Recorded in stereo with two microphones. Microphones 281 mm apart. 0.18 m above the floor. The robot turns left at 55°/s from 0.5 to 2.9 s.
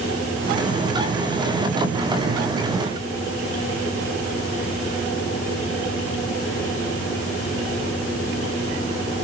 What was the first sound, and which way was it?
Only background noise.